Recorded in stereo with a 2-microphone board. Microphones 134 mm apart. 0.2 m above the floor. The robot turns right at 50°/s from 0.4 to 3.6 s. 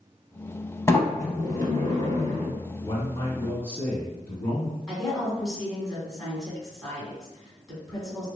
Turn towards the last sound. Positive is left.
turn(degrees=0)  # may be behind; listen again after turning